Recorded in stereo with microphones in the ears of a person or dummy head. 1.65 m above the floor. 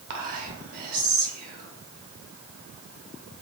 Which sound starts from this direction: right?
Whispering, at 0.1 s.